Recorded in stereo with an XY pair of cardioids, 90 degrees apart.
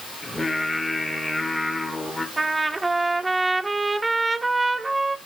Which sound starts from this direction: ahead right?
A trumpet, at 2.4 s.